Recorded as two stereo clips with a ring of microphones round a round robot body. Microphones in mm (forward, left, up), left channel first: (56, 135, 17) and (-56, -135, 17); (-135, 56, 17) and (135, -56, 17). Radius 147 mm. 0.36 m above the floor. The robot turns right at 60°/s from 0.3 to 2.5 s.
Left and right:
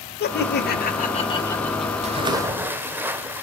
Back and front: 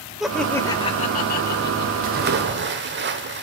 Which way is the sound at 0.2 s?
65° left.